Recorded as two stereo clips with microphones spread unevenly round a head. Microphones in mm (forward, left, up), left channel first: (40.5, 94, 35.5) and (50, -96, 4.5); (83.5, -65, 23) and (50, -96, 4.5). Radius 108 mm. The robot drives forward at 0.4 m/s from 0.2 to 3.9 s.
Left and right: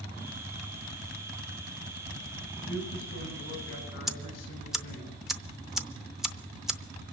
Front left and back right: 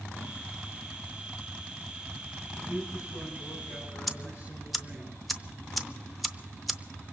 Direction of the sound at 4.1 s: 145° right.